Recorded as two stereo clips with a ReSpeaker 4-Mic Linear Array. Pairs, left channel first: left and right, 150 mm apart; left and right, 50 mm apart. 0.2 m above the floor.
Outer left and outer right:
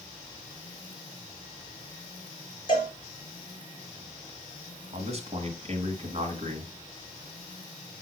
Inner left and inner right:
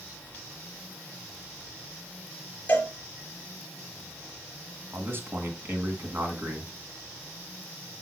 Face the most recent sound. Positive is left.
turn(degrees=-45)  # may be behind; listen again after turning